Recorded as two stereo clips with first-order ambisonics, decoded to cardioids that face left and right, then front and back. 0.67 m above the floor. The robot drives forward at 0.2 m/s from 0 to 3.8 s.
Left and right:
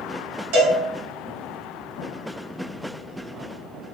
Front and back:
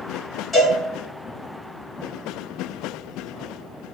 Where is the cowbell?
80° right, 2.0 m; by 0.8 s 85° right, 2.0 m.